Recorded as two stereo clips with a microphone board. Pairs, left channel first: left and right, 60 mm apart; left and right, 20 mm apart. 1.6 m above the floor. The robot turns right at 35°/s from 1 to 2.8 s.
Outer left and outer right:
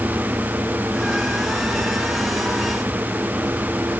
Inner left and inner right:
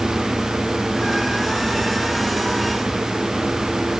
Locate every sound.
Only background noise.